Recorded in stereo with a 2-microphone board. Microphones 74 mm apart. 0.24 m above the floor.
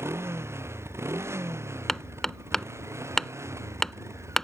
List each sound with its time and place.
0.0 s a motorcycle: 35° right (ahead or behind); by 4.4 s 40° right (ahead or behind)
1.9 s hammering: 5° left (ahead or behind)